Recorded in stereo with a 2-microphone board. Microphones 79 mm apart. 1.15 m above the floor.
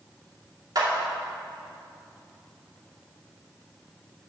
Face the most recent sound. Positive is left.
turn(degrees=-55)  # may be behind; listen again after turning